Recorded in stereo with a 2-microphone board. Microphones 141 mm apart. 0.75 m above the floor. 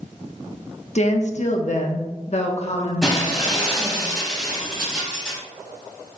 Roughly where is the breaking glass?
Centre.